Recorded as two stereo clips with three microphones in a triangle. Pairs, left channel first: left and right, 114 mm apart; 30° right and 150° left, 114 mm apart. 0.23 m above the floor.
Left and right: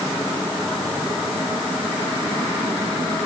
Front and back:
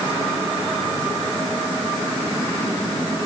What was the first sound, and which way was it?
Only background noise.